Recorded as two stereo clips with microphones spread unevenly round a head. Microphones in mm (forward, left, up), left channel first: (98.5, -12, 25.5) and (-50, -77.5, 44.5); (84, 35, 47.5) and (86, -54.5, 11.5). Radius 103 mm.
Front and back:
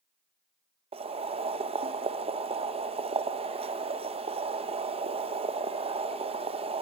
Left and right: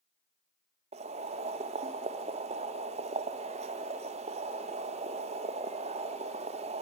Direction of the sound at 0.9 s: 105° right.